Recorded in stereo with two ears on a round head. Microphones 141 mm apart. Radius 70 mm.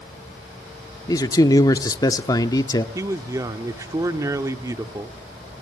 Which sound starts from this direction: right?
A man speaking, at 3.0 s.